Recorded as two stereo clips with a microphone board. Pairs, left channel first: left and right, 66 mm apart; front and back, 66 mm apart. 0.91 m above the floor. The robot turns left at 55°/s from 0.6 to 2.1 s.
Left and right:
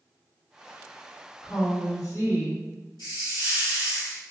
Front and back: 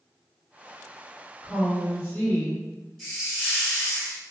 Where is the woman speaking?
100° left, 1.5 m; by 2.6 s 65° left, 1.5 m.